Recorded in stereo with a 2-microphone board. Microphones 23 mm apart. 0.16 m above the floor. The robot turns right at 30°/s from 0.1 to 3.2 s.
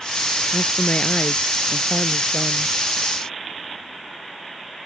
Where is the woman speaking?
55° left; by 2.7 s 120° left.